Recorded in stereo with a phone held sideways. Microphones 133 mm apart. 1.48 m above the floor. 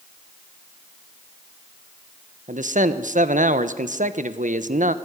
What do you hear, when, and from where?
2.5 s a man speaking: 75° right (ahead or behind), 1.2 m